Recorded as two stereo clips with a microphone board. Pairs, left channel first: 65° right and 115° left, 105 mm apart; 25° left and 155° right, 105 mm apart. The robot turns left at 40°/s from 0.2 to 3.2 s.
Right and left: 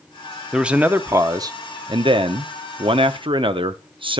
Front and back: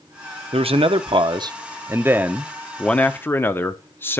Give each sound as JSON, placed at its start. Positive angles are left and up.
{"t": 0.5, "sound": "a man speaking", "azimuth_deg": -160, "distance_m": 0.6}